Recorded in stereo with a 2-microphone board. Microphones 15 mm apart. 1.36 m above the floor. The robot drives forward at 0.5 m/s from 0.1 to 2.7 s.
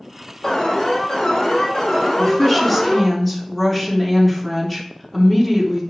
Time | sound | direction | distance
0.4 | an alarm | 65° left (ahead or behind) | 4.5 m
2.2 | a woman speaking | 25° left (ahead or behind) | 3 m